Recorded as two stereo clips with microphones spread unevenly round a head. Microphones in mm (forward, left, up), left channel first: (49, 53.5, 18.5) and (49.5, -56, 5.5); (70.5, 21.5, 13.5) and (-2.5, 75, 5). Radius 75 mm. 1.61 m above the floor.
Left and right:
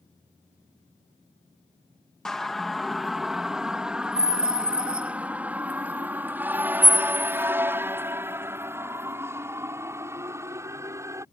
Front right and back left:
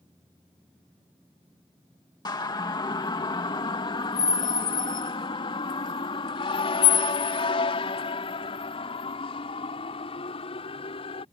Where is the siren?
5° left; by 11.2 s 25° right.